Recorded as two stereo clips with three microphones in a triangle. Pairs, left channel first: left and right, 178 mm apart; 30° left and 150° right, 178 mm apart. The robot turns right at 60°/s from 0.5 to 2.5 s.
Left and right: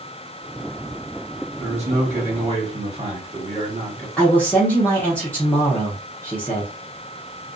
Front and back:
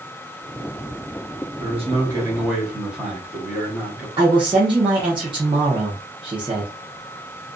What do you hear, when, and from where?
1.6 s a man speaking: 125° right, 1.3 m; by 4.1 s 70° right, 1.3 m
4.2 s a man speaking: 165° left, 0.8 m